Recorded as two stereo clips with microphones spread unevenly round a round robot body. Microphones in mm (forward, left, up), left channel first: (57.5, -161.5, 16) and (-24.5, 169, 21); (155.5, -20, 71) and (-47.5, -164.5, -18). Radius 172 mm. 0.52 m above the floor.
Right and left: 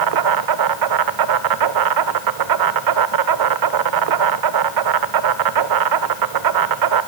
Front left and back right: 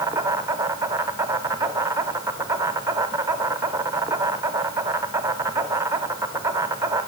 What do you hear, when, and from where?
0.0 s an insect: 135° left, 1.1 m